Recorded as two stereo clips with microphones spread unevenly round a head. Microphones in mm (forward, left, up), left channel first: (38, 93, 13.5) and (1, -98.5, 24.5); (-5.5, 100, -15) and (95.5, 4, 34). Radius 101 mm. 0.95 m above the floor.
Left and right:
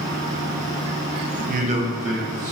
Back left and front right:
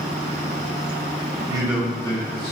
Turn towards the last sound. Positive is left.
turn(degrees=150)